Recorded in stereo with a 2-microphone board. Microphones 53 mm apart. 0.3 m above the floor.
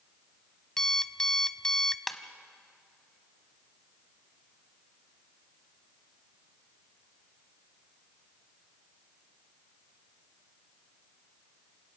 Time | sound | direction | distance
0.8 | an alarm clock | 10° left (ahead or behind) | 0.6 m
2.1 | a ringtone | centre (ahead or behind) | 1.4 m